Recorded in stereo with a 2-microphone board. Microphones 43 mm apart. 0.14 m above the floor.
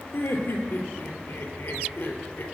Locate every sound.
0.1 s laughter: 65° left (ahead or behind), 2.5 m